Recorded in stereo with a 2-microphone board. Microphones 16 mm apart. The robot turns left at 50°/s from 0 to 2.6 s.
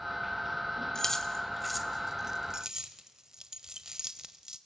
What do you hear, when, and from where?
0.9 s keys jangling: 30° left (ahead or behind), 1.3 m; by 4.6 s 35° right (ahead or behind), 1.3 m